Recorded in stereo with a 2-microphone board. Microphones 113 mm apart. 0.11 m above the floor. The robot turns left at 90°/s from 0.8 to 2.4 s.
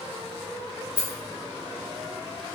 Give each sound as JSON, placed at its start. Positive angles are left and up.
{"t": 1.0, "sound": "a rattle", "side_deg": -45, "distance_m": 0.6}